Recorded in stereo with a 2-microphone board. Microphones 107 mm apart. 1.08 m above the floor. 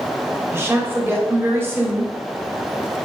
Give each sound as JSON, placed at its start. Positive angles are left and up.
{"t": 0.5, "sound": "a woman speaking", "side_deg": -20, "distance_m": 2.5}